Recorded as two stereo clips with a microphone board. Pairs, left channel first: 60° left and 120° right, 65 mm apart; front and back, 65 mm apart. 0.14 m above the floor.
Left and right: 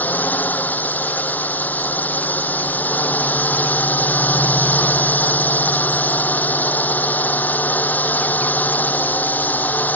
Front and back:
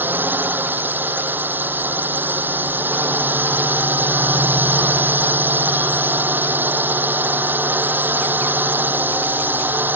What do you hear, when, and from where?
0.0 s a drone: 120° left